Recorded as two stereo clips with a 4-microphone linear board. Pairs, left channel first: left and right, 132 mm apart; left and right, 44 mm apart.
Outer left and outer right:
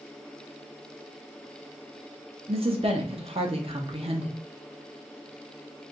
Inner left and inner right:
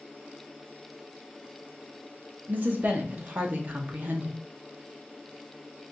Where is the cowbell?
No cowbell in this recording.